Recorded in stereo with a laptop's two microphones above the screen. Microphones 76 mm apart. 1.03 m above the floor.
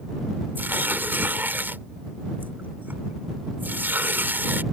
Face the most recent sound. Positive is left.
turn(degrees=-25)  # may be behind; listen again after turning